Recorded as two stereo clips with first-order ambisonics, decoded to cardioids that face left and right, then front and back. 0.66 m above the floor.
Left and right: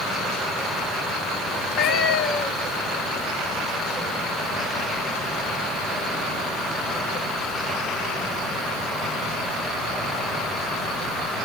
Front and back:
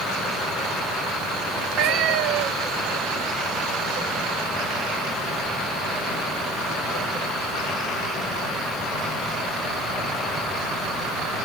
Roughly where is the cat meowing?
Behind left.